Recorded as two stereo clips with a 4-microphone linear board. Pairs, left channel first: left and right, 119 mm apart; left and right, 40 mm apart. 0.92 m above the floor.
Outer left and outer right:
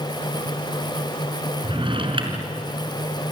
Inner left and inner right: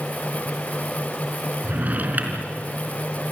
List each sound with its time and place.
1.6 s a drawer: 45° right (ahead or behind), 3.5 m